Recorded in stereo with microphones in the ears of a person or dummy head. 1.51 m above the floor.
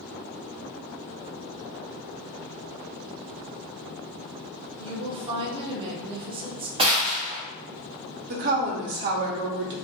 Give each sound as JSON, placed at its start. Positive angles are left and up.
{"t": 4.8, "sound": "a woman speaking", "side_deg": -25, "distance_m": 0.6}
{"t": 6.8, "sound": "a gunshot", "side_deg": -30, "distance_m": 0.7}
{"t": 8.3, "sound": "a woman speaking", "side_deg": -55, "distance_m": 0.5}